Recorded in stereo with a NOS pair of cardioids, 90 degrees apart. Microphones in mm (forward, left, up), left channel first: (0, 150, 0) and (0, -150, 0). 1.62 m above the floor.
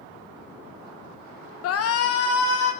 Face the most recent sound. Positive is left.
turn(degrees=50)